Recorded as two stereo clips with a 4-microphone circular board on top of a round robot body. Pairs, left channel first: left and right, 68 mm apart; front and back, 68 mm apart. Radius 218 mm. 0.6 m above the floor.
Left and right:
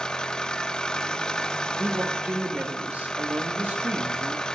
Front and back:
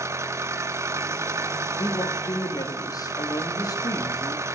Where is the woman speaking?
25° right, 1.9 m.